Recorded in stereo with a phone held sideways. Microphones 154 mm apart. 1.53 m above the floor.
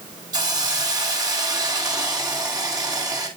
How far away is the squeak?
I don't hear a squeak.